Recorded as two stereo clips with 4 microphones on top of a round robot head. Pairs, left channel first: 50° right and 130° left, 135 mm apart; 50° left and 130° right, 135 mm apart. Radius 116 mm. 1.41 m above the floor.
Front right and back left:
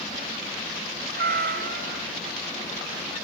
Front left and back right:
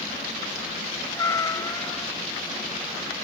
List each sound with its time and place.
1.1 s a cat meowing: 120° left